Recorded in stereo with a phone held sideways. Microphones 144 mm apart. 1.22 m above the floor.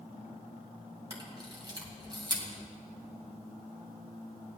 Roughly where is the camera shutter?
Right.